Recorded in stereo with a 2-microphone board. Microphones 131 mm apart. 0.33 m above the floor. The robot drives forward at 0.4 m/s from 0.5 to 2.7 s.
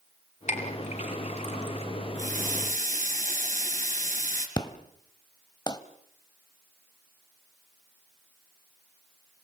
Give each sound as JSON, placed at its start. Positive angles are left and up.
{"t": 0.5, "sound": "a clink", "side_deg": 65, "distance_m": 4.0}
{"t": 2.1, "sound": "a running tap", "side_deg": -75, "distance_m": 3.5}
{"t": 4.6, "sound": "an explosion", "side_deg": 30, "distance_m": 1.1}